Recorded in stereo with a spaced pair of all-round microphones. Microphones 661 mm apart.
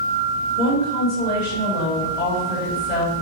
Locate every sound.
0.6 s a woman speaking: 75° left (ahead or behind), 1.4 m